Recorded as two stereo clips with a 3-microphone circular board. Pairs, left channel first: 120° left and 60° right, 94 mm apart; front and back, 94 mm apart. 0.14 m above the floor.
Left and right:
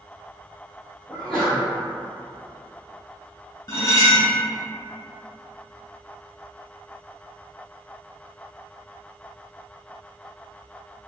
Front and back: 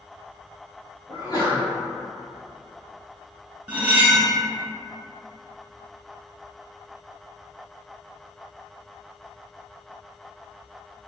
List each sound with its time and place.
1.1 s a sneeze: 25° left, 1.6 m
3.7 s cutlery clinking: 120° left, 0.9 m